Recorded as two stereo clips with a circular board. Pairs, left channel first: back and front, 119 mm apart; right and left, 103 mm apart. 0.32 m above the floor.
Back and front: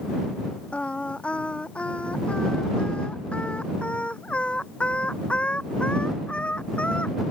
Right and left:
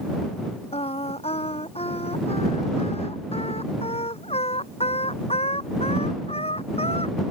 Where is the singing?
100° right.